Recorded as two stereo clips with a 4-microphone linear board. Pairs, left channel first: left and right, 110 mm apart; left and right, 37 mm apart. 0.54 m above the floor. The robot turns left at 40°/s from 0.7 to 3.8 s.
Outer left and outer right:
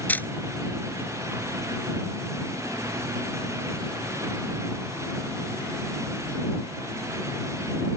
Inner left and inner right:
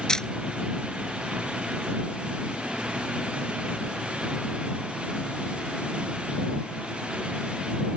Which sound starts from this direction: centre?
A camera shutter, at 0.1 s.